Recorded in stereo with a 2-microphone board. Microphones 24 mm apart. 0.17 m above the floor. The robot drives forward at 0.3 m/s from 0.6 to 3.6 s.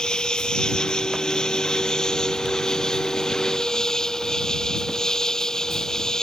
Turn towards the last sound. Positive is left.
turn(degrees=25)  # may be behind; listen again after turning